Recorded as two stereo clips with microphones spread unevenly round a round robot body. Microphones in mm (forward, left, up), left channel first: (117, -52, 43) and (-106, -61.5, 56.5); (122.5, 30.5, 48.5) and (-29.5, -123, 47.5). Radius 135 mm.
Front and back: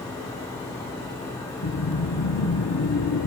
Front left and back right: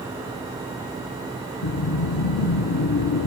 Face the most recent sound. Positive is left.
turn(degrees=30)